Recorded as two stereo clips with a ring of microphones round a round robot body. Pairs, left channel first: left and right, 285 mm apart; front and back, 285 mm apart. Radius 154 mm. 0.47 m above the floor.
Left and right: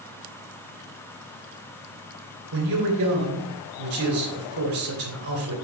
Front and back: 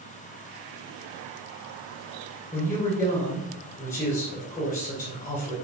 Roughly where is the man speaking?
Right.